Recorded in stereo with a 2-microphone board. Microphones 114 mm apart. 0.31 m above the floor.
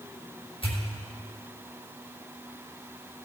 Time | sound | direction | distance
0.6 | a pop | 50° left (ahead or behind) | 4 m